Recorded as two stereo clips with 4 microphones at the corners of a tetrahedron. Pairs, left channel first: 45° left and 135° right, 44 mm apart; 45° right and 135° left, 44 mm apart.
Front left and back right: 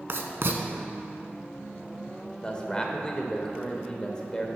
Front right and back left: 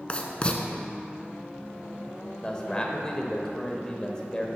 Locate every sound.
0.1 s writing: 110° right, 0.7 m
2.4 s a man speaking: straight ahead, 0.9 m